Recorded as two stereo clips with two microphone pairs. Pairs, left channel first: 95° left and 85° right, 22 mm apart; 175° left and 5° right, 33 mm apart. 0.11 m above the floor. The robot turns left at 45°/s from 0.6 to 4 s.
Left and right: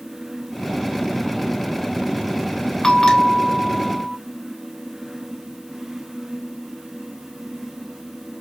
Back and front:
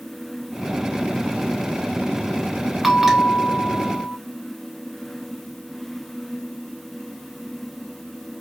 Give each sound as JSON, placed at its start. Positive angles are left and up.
{"t": 2.8, "sound": "a bell", "azimuth_deg": 70, "distance_m": 0.8}